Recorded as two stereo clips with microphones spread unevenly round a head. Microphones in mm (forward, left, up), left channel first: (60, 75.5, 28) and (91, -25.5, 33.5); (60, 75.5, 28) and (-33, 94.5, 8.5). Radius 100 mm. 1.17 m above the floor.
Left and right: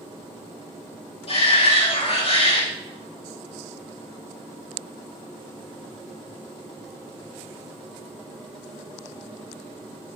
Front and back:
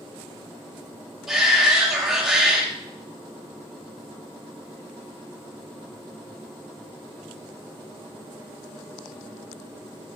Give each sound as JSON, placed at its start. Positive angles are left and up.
{"t": 1.3, "sound": "a shout", "azimuth_deg": 85, "distance_m": 3.0}